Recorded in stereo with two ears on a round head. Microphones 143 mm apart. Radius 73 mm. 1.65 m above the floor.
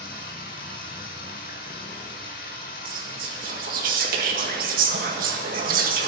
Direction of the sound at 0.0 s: 55° left (ahead or behind).